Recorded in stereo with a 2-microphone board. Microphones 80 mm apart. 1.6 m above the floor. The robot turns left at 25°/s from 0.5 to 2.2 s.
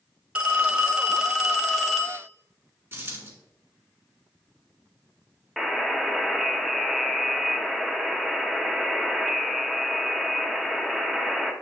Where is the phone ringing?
155° right, 0.9 m; by 2.3 s 165° left, 0.9 m.